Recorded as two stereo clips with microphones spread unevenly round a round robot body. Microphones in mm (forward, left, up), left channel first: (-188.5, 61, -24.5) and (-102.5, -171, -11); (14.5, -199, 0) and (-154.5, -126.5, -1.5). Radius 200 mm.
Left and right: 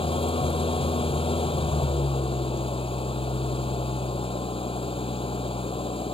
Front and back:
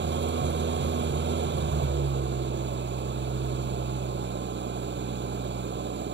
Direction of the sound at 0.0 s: Straight behind.